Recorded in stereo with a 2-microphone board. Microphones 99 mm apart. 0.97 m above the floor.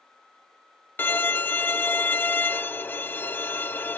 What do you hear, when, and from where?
1.0 s a violin: 20° left (ahead or behind)